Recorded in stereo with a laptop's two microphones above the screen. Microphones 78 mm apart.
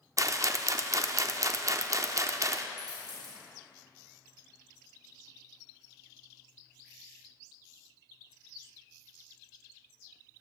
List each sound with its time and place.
0.2 s a rattle: 40° right (ahead or behind), 0.6 m
2.8 s a dropped coin: 60° right (ahead or behind), 2.5 m